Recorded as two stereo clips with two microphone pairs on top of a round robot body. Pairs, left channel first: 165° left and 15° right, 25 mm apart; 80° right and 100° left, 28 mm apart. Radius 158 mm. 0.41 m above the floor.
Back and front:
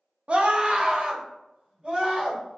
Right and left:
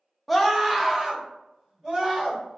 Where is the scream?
15° left, 0.9 m; by 2.6 s 40° left, 2.5 m.